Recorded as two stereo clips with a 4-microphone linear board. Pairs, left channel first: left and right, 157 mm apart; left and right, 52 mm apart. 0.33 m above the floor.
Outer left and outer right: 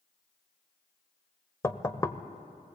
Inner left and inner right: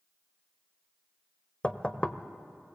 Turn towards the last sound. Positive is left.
turn(degrees=20)  # may be behind; listen again after turning